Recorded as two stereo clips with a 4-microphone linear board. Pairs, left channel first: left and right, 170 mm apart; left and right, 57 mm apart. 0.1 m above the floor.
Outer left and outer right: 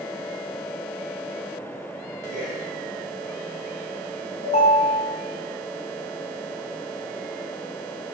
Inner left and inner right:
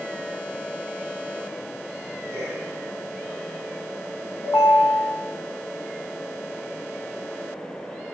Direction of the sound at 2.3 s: 60° right (ahead or behind).